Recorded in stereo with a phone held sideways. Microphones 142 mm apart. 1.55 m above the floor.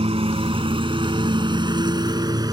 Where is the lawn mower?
40° right (ahead or behind); by 2.5 s 25° right (ahead or behind).